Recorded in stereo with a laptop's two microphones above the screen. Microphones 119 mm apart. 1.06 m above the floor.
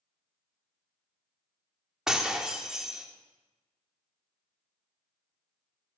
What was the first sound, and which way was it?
Breaking glass, 5° right (ahead or behind).